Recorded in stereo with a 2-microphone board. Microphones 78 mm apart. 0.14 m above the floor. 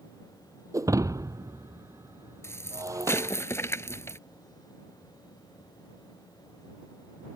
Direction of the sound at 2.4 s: 35° left (ahead or behind).